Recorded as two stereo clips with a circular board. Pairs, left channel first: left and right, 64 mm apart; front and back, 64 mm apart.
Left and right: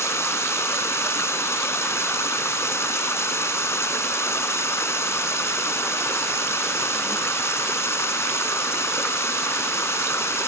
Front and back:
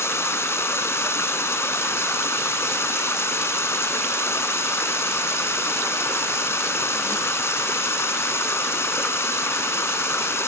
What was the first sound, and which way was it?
Running water, 45° left.